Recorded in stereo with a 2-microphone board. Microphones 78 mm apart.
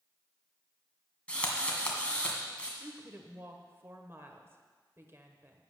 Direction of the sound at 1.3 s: 15° left (ahead or behind).